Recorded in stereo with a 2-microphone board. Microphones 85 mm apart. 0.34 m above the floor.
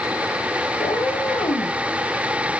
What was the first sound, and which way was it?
A cat meowing, 85° left.